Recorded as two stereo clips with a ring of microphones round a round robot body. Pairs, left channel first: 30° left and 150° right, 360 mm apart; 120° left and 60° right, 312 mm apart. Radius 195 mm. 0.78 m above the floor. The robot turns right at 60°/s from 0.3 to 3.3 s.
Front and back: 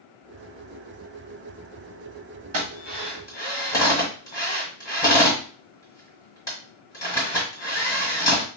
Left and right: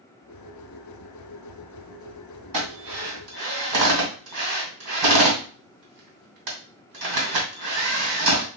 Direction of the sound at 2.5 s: 95° right.